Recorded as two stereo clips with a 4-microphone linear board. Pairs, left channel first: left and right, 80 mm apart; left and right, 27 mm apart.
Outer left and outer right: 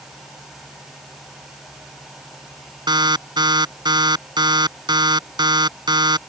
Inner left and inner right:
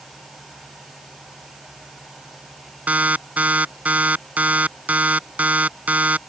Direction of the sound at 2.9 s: 65° right (ahead or behind).